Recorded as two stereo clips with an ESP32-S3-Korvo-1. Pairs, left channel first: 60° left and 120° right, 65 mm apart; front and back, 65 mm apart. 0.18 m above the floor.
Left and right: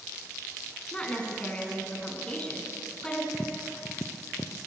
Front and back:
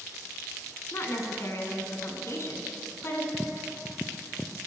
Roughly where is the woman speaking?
Ahead.